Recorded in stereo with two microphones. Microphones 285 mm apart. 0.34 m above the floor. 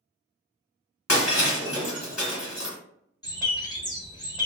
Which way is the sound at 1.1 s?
65° left (ahead or behind).